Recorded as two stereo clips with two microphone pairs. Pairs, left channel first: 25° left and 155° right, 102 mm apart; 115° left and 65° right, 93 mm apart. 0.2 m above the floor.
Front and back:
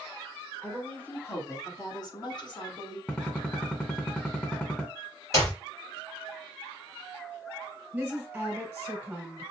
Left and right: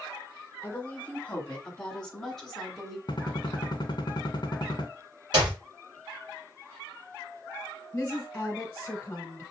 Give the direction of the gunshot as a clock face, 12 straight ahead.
9 o'clock.